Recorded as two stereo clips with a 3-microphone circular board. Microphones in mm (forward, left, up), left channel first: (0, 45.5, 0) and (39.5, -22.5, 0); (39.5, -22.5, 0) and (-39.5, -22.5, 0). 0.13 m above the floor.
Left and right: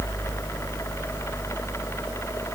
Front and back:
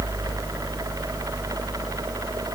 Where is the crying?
I don't hear crying.